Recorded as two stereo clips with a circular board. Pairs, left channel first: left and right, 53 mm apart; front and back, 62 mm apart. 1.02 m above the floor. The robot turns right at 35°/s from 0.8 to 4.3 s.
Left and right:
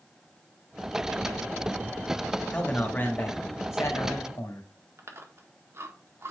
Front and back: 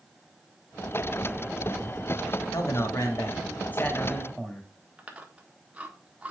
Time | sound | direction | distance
2.5 | a man speaking | 20° left | 2 m
5.0 | chewing | 110° right | 1.5 m